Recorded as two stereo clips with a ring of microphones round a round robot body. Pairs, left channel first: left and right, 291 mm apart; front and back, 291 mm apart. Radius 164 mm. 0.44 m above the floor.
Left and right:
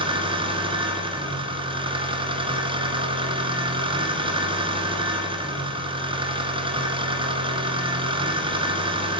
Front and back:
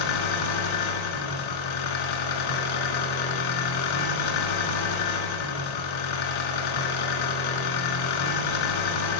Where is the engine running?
15° right, 1.7 m.